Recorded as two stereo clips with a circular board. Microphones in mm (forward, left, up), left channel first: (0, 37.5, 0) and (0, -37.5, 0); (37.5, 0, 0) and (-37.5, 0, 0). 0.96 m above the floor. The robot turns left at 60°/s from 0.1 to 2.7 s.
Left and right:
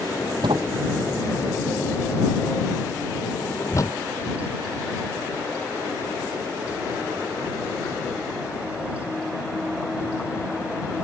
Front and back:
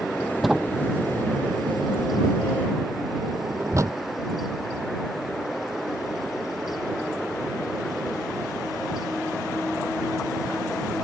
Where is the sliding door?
90° right; by 4.0 s 135° left.